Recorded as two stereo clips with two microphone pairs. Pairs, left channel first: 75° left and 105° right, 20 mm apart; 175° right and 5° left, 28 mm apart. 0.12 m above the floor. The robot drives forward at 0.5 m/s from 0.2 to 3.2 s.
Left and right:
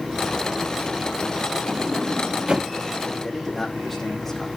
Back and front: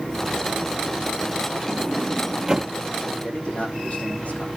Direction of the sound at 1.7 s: 50° right.